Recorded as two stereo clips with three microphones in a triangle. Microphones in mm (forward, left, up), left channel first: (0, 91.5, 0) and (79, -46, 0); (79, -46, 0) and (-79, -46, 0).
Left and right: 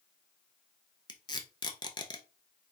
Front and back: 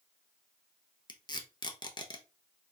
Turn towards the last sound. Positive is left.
turn(degrees=60)